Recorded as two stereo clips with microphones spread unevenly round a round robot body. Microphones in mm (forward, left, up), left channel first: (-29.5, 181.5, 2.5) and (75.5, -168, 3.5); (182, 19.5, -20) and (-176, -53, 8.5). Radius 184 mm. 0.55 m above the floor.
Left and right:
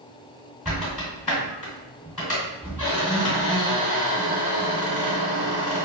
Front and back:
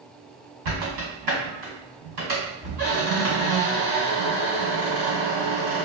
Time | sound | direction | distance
0.7 | a squeak | 160° right | 1.6 m